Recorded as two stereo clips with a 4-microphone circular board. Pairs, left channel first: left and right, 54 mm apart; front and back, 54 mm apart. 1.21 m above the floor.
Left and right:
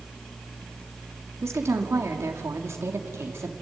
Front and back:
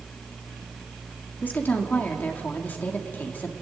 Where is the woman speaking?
55° right, 2.5 m.